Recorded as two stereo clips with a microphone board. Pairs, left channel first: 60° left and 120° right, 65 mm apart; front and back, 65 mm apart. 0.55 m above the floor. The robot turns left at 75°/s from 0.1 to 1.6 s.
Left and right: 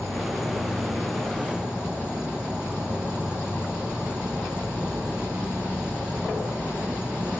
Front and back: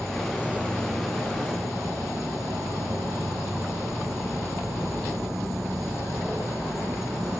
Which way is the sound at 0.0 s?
85° right.